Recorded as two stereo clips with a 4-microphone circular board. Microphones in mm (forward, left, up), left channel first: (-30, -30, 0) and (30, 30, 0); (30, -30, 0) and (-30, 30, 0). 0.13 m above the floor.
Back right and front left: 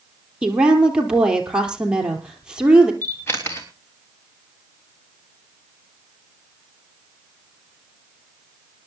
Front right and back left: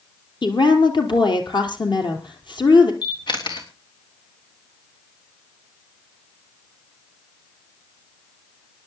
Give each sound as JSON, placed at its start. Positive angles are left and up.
{"t": 0.4, "sound": "a woman speaking", "azimuth_deg": -35, "distance_m": 3.0}
{"t": 3.0, "sound": "a camera shutter", "azimuth_deg": -75, "distance_m": 3.0}